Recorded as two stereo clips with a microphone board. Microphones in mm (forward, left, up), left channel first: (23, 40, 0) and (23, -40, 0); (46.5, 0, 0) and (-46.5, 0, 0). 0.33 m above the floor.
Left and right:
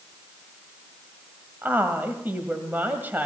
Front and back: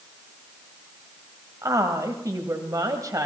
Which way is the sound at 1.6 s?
150° right.